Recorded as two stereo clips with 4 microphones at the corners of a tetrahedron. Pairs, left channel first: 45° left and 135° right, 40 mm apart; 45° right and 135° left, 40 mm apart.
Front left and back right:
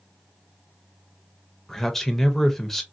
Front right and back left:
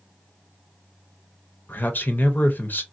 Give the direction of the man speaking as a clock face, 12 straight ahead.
1 o'clock.